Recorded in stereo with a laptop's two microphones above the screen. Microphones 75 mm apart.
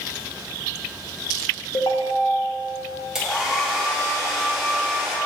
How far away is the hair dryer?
About 1.7 m.